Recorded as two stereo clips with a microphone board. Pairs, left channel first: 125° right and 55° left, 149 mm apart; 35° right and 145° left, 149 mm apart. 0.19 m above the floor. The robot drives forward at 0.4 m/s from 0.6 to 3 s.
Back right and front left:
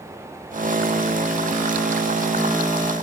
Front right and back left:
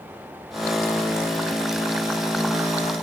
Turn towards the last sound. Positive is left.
No sound to turn to.